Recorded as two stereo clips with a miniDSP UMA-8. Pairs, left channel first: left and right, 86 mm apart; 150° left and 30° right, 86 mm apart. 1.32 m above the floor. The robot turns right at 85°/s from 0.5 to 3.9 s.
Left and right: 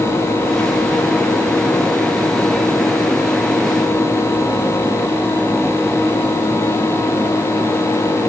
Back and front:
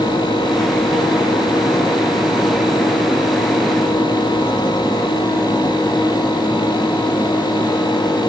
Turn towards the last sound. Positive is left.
No sound to turn to.